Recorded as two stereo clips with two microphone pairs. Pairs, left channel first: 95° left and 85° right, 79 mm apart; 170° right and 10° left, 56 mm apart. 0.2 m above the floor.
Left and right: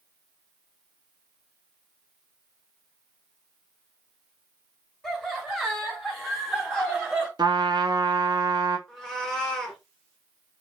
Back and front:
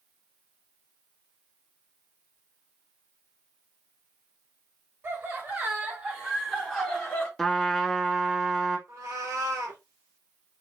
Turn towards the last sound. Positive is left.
turn(degrees=10)